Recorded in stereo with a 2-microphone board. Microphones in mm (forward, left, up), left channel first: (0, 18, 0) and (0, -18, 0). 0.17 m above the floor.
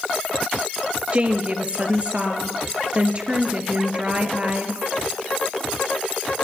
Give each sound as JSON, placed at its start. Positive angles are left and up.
{"t": 1.1, "sound": "a woman speaking", "side_deg": -35, "distance_m": 3.5}